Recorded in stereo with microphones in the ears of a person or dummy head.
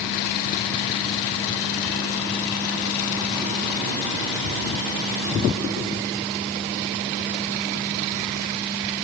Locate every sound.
Only background noise.